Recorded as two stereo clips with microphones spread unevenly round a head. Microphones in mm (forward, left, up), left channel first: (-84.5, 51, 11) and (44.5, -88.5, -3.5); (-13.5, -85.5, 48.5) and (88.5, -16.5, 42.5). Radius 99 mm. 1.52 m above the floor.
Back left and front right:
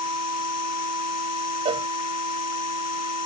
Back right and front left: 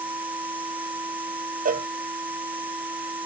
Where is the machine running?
115° left.